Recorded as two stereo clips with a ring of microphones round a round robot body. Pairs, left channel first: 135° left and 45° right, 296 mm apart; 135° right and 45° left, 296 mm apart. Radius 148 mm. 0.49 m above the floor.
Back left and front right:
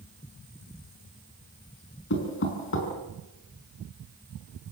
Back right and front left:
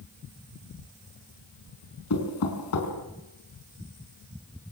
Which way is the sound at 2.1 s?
175° right.